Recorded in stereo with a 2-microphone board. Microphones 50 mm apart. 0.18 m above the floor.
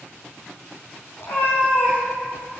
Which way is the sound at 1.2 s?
55° left (ahead or behind).